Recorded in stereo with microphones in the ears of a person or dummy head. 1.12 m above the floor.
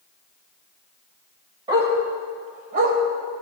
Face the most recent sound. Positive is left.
turn(degrees=-50)  # may be behind; listen again after turning